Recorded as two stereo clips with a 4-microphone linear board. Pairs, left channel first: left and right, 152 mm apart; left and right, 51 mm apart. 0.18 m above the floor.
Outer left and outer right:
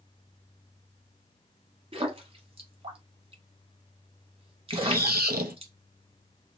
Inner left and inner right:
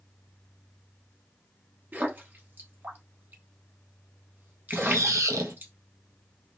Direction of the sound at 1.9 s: 35° right (ahead or behind).